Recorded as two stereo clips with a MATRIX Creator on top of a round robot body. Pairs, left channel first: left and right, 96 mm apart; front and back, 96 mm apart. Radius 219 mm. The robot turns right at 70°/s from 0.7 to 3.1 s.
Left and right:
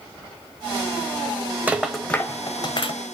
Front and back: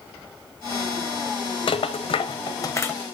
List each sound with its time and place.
1.7 s a rattle: 20° right, 1.1 m; by 2.9 s 70° left, 1.1 m